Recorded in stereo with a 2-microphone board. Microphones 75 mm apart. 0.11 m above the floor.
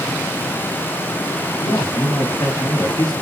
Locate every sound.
1.6 s a man speaking: 65° left (ahead or behind), 4 m; by 3.1 s 60° left (ahead or behind), 4.5 m